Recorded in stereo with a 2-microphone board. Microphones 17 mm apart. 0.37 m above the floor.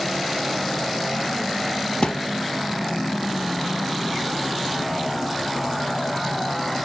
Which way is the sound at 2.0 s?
80° left.